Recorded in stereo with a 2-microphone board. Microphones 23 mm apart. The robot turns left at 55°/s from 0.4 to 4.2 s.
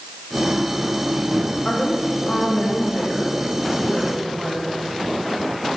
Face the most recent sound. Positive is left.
turn(degrees=0)